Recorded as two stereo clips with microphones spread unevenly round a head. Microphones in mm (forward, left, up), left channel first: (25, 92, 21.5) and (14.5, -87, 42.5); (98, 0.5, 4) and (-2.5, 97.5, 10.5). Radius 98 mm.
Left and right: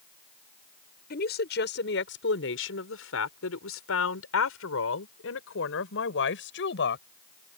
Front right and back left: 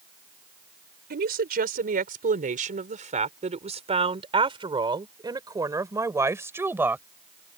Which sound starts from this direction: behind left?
A woman speaking, at 1.1 s.